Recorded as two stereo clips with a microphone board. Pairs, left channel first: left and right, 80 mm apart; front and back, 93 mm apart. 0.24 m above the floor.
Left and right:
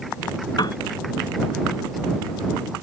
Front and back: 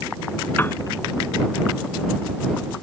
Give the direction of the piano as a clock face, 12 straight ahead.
10 o'clock.